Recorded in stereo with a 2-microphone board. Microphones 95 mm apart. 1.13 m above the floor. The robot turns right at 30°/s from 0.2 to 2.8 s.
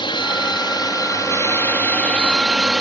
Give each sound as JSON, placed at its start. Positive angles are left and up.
{"t": 0.0, "sound": "a drone", "azimuth_deg": 105}